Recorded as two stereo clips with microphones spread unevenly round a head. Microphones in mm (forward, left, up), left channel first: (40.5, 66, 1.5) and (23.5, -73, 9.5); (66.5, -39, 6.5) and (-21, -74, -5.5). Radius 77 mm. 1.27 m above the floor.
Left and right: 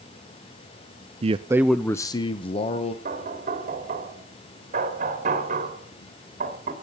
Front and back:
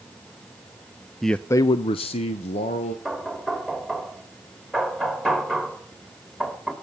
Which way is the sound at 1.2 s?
75° right.